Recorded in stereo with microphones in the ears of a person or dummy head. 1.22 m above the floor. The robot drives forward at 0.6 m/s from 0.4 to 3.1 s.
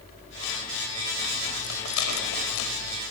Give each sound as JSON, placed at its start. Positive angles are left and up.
{"t": 1.6, "sound": "a rattle", "side_deg": 80, "distance_m": 4.5}